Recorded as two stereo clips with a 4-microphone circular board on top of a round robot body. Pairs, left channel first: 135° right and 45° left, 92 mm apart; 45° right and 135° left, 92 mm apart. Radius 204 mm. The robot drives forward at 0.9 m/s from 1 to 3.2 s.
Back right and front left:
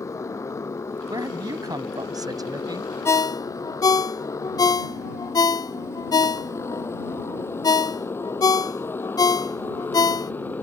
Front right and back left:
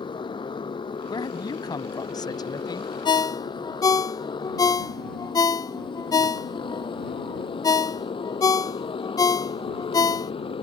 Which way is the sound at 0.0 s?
75° right.